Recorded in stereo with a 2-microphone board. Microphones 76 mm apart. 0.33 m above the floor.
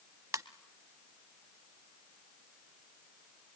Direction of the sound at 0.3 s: 50° right (ahead or behind).